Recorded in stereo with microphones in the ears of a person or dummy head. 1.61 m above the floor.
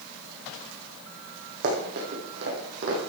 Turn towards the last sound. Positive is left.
turn(degrees=-60)  # may be behind; listen again after turning